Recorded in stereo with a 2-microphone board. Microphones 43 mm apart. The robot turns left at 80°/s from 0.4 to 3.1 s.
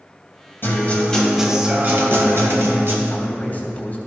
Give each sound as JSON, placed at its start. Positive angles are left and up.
{"t": 0.6, "sound": "a guitar", "azimuth_deg": 60, "distance_m": 2.0}
{"t": 3.1, "sound": "a man speaking", "side_deg": 25, "distance_m": 3.0}